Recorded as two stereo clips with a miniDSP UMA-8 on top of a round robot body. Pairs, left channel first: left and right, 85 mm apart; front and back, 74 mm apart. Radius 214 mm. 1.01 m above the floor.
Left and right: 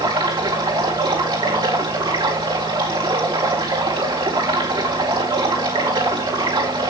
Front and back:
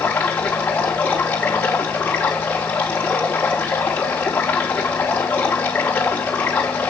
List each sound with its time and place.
0.0 s running water: 70° right, 4.5 m